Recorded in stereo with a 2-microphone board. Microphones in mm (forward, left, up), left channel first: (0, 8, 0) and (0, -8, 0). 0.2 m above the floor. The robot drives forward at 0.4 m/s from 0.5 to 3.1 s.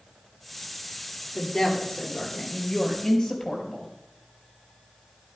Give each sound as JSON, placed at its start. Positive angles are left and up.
{"t": 1.4, "sound": "a woman speaking", "side_deg": 25, "distance_m": 4.0}